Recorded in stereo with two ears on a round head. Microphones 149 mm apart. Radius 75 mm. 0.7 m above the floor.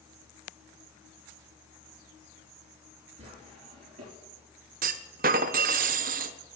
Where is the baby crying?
No baby crying in this recording.